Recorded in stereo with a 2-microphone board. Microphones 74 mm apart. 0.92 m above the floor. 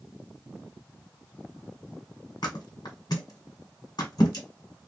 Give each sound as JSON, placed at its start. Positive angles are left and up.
{"t": 2.4, "sound": "a thud", "side_deg": 65, "distance_m": 1.5}